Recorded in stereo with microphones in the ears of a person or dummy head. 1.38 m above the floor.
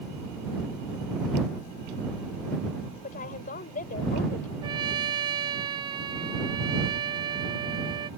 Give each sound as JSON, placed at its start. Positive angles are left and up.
{"t": 3.0, "sound": "a woman speaking", "side_deg": 45}
{"t": 4.6, "sound": "a trumpet", "side_deg": -25}